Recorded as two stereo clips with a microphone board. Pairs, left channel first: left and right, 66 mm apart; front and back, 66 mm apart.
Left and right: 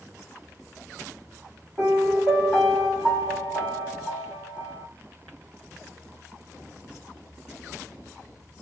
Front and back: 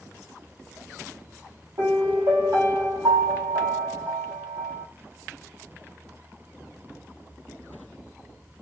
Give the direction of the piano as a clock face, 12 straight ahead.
6 o'clock.